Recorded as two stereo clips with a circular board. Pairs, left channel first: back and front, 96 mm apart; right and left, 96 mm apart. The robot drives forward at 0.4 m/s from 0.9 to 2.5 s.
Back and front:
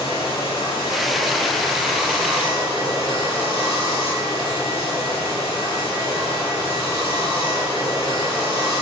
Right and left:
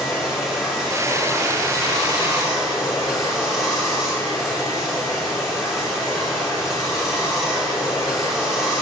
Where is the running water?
175° left, 2.5 m.